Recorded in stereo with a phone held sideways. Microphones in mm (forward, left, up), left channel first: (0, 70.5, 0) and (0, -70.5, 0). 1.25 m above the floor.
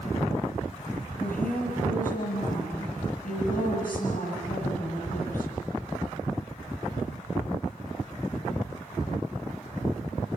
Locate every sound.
1.2 s a woman speaking: 75° left (ahead or behind), 9 m